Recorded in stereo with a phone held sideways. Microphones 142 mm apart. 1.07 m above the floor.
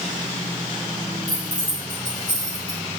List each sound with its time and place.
1.3 s keys jangling: 30° right (ahead or behind), 4 m; by 2.8 s 40° right (ahead or behind), 5.5 m